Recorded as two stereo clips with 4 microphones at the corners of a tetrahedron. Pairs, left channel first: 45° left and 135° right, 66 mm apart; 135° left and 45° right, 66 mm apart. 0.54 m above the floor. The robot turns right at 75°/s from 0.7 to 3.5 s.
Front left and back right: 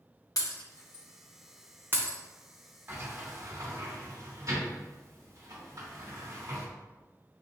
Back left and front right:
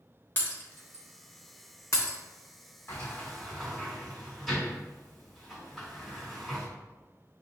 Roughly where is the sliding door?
Behind.